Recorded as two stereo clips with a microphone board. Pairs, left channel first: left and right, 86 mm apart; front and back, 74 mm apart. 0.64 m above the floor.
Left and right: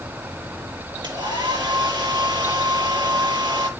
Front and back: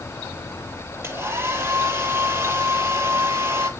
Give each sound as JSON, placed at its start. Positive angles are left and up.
{"t": 1.0, "sound": "a hair dryer", "azimuth_deg": -120, "distance_m": 9.5}